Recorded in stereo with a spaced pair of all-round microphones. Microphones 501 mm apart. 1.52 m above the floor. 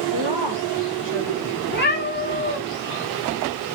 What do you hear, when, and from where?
0.1 s a woman speaking: 65° right (ahead or behind), 1.7 m
1.7 s a cat meowing: 20° left (ahead or behind), 1.9 m